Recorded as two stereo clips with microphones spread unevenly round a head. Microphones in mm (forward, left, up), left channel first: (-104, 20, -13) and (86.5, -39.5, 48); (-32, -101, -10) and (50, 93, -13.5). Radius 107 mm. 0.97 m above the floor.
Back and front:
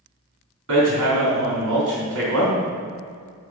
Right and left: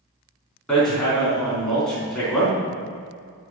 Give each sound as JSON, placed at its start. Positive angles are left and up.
{"t": 0.7, "sound": "hammering", "azimuth_deg": -25, "distance_m": 3.5}